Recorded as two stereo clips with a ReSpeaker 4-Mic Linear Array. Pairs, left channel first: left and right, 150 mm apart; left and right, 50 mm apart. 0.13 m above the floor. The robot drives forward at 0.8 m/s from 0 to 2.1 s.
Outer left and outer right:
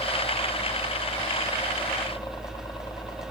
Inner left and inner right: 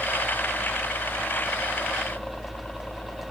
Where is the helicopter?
25° left (ahead or behind).